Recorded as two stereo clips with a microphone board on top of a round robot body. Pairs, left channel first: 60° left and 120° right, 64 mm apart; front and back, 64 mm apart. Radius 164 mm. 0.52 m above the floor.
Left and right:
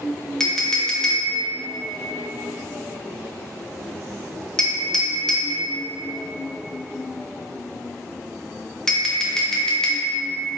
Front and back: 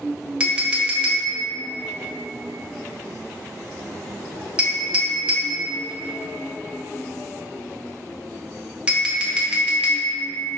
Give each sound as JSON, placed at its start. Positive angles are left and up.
{"t": 0.4, "sound": "a clink", "azimuth_deg": 135, "distance_m": 0.7}